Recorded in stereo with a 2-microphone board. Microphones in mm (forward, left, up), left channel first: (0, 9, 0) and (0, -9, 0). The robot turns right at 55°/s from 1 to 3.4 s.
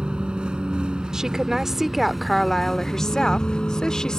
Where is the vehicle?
70° right; by 4.2 s 60° left.